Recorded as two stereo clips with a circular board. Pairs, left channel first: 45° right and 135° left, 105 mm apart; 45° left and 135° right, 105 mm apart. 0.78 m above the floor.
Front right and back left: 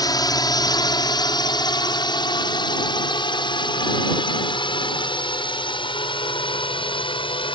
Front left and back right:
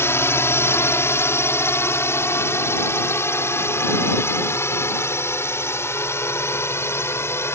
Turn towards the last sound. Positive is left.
turn(degrees=-20)